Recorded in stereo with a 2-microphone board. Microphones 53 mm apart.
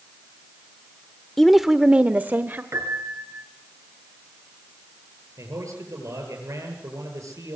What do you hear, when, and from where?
1.4 s a woman speaking: 10° left (ahead or behind), 0.9 m; by 2.6 s 40° right (ahead or behind), 1.2 m
2.7 s a piano: 60° right (ahead or behind), 3.5 m
5.4 s a man speaking: 80° right, 9 m